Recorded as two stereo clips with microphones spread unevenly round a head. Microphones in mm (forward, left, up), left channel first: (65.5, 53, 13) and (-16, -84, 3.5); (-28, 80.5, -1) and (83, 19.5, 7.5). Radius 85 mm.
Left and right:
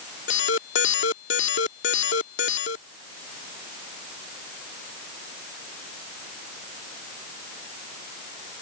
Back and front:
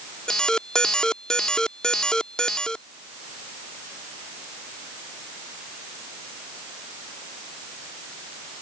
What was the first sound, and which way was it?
An alarm, 65° left.